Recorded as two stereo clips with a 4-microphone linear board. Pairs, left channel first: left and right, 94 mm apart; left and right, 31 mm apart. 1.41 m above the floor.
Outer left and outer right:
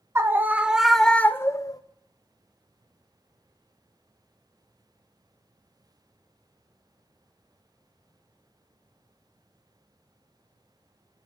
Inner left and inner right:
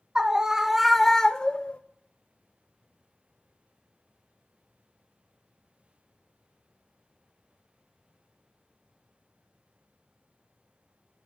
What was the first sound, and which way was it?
A scream, 25° right (ahead or behind).